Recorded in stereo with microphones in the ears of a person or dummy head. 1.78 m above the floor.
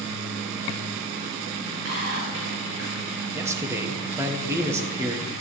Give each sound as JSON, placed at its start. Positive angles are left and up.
{"t": 1.9, "sound": "whispering", "side_deg": -70, "distance_m": 7.5}
{"t": 3.3, "sound": "a man speaking", "side_deg": -15, "distance_m": 1.5}